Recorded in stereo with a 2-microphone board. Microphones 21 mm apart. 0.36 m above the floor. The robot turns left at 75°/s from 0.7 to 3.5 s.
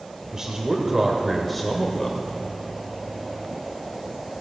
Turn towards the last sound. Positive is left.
turn(degrees=35)